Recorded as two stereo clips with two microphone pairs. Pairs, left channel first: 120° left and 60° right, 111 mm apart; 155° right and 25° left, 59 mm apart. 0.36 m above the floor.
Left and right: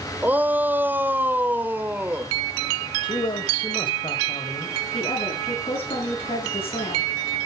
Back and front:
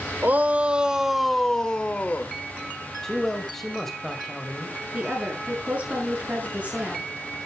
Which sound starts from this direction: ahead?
A shout, at 0.2 s.